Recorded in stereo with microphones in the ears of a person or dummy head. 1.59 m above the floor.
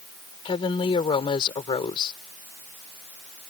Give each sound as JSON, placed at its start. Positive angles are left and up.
{"t": 0.5, "sound": "a woman speaking", "side_deg": 30}